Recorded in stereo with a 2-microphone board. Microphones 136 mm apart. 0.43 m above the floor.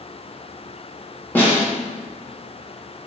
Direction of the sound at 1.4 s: 15° left (ahead or behind).